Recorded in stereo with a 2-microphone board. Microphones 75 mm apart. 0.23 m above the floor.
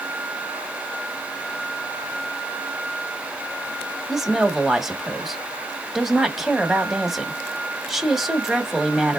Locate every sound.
4.1 s a woman speaking: 5° right (ahead or behind), 1.1 m